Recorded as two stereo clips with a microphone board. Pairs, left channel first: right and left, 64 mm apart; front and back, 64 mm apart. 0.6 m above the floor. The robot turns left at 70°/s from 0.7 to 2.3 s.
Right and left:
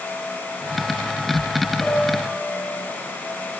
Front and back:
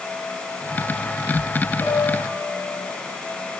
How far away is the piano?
About 7.5 m.